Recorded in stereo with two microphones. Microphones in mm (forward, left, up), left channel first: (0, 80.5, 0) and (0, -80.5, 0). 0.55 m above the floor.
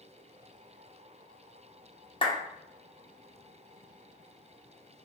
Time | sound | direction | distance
2.2 | a clap | 30° left (ahead or behind) | 1.0 m